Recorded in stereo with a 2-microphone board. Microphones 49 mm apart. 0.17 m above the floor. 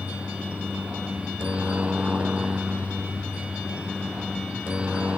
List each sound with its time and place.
0.0 s a helicopter: 25° right (ahead or behind)